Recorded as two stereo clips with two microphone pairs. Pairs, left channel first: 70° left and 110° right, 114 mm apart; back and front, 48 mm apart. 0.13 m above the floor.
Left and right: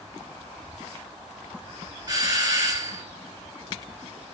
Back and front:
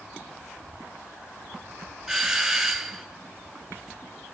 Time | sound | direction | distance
2.1 | a doorbell | 80° right | 2.5 m